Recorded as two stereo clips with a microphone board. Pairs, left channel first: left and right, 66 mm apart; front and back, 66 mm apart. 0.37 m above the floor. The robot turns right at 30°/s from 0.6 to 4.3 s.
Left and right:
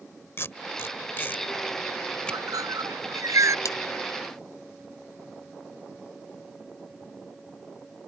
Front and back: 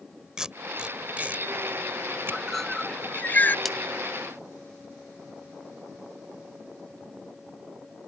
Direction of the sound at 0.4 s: 105° left.